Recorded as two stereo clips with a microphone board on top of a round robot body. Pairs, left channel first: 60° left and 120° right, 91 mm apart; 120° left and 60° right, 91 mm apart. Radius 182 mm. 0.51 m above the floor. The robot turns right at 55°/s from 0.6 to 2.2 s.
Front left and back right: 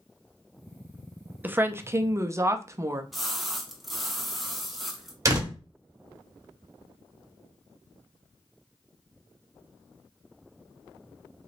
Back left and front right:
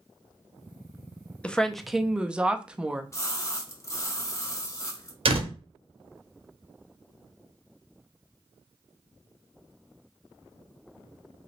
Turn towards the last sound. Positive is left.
turn(degrees=-65)